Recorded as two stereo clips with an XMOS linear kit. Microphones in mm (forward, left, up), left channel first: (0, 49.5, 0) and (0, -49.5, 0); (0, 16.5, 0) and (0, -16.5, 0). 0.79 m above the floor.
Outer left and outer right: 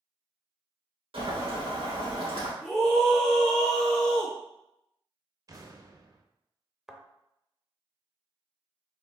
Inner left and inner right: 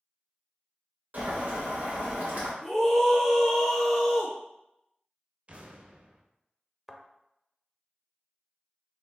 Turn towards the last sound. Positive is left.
turn(degrees=-5)  # may be behind; listen again after turning